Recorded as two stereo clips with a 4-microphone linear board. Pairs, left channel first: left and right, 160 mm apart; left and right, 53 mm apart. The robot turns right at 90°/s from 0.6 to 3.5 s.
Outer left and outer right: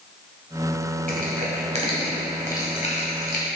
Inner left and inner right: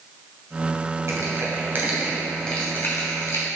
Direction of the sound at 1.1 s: 55° right (ahead or behind).